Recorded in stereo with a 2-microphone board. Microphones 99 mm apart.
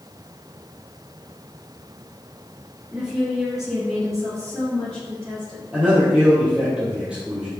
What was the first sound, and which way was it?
A woman speaking, 10° right (ahead or behind).